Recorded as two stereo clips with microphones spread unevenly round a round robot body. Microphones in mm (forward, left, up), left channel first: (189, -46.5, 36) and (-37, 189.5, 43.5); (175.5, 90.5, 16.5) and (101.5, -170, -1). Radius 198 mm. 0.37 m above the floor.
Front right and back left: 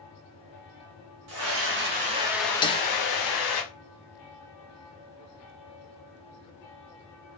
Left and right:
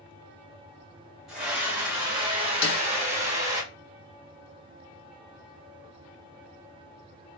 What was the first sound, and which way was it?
A scream, 170° left.